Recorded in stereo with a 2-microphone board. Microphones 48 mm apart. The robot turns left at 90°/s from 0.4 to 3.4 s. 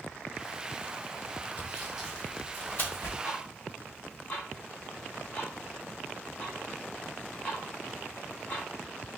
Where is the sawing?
35° right (ahead or behind), 1.4 m; by 3.2 s 60° left (ahead or behind), 1.4 m.